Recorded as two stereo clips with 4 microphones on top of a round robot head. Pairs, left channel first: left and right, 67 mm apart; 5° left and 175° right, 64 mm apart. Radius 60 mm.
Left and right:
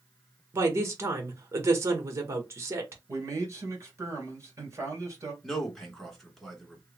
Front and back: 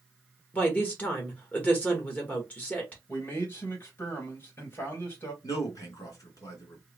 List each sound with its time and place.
0.5 s a woman speaking: 60° right, 1.0 m
3.1 s a man speaking: 50° right, 2.5 m
5.4 s a man speaking: 5° left, 2 m